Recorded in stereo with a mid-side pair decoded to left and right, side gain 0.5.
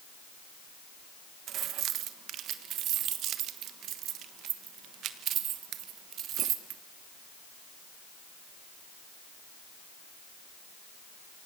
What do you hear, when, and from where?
1.5 s keys jangling: 70° right, 1.3 m